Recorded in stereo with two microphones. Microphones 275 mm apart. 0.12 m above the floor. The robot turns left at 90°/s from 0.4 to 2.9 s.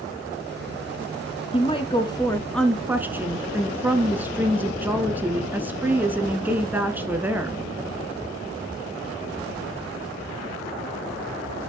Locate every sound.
1.5 s a woman speaking: 20° left (ahead or behind), 1.1 m; by 7.6 s 5° right (ahead or behind), 1.1 m